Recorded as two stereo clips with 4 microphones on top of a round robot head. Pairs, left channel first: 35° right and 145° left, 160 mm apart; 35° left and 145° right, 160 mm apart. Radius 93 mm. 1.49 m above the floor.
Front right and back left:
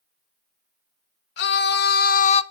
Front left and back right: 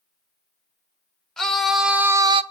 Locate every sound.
1.4 s a scream: 50° right, 1.9 m; by 2.4 s 90° right, 0.7 m